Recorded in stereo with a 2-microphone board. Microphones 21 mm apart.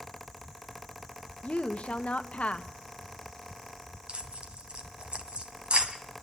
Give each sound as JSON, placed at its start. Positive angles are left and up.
{"t": 1.4, "sound": "a woman speaking", "side_deg": 75, "distance_m": 1.1}
{"t": 4.1, "sound": "tearing paper", "side_deg": -60, "distance_m": 2.0}